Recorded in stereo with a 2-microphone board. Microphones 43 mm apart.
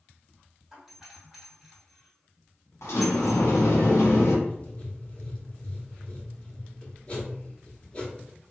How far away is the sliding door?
About 0.8 m.